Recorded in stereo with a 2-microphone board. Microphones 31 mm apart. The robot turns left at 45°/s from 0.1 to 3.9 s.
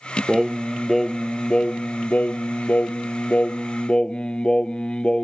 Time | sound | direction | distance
0.3 | singing | 155° right | ?